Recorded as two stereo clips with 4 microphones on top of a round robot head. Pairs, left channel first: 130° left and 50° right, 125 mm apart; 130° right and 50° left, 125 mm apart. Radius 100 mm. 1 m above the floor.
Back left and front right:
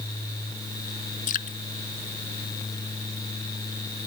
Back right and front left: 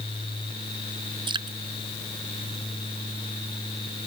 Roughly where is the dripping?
Left.